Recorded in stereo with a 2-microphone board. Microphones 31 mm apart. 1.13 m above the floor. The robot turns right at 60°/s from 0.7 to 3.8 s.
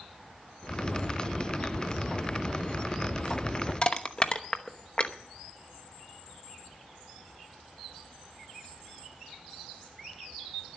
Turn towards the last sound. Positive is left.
turn(degrees=35)  # may be behind; listen again after turning